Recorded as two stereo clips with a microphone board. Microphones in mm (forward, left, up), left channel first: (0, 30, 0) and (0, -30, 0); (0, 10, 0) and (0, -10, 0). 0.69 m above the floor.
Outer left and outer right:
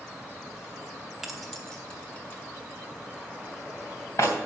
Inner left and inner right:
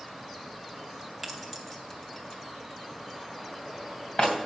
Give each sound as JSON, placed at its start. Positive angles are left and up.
{"t": 1.2, "sound": "keys jangling", "side_deg": -5, "distance_m": 1.4}